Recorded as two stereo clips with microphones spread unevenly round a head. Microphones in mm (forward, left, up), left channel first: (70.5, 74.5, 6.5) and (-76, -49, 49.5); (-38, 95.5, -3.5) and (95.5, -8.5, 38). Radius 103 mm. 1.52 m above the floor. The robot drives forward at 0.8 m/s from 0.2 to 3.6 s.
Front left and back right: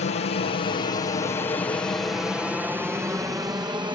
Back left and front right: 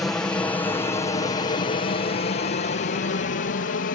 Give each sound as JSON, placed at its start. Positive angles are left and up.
{"t": 0.0, "sound": "an aircraft", "azimuth_deg": 65}